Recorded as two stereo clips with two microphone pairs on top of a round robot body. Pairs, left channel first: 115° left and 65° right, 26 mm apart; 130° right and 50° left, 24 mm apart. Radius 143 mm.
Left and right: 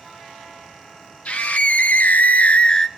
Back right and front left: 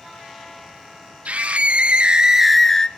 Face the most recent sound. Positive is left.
turn(degrees=180)